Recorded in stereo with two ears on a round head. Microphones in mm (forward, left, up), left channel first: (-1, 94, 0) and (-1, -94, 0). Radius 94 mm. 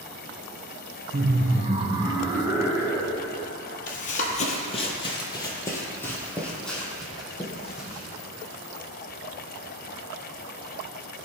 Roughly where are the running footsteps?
Left.